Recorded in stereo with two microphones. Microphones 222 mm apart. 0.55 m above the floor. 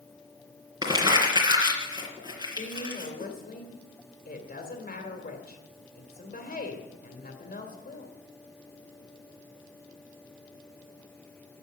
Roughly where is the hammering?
No hammering in this recording.